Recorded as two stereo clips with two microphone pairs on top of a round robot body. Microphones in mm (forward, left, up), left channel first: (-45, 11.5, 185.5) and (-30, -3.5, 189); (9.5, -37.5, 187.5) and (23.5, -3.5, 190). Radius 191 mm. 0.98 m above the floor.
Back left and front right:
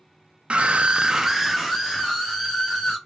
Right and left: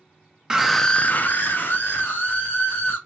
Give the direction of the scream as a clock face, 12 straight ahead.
12 o'clock.